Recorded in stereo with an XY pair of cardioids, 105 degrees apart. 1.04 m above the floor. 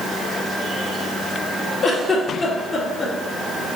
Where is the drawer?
I don't hear a drawer.